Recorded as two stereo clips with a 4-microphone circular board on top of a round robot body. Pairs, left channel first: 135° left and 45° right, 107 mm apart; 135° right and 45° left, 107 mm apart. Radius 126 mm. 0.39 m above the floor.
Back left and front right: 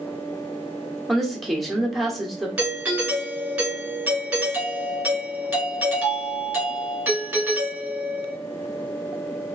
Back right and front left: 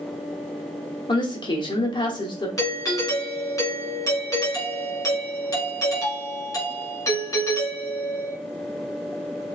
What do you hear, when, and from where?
1.1 s a woman speaking: 135° right, 1.2 m
2.6 s a doorbell: 110° right, 2 m